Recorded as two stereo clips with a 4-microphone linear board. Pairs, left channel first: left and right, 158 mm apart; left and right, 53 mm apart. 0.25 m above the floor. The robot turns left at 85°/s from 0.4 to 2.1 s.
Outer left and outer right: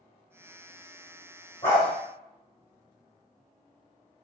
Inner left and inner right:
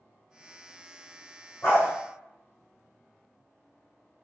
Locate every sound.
1.6 s a dog barking: 45° left (ahead or behind), 2.5 m; by 1.9 s 75° left (ahead or behind), 2.5 m